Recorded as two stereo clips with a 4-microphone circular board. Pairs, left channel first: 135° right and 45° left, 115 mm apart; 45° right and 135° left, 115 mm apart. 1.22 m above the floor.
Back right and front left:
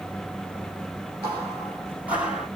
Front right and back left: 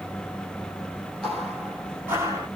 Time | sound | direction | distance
1.2 | footsteps | 35° left | 1.4 m